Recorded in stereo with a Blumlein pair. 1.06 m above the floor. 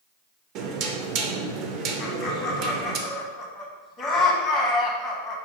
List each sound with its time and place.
0.6 s knocking: 40° right, 0.5 m
2.0 s laughter: 20° left, 0.8 m